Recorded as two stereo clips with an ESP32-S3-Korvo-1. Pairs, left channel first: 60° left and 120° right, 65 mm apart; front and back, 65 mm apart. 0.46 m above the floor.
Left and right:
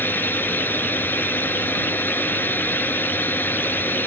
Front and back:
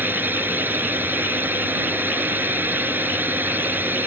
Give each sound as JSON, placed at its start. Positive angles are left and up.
{"t": 0.0, "sound": "a drone", "azimuth_deg": 120}